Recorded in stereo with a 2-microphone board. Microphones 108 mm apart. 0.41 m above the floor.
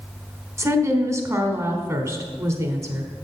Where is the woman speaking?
25° right (ahead or behind), 1.1 m.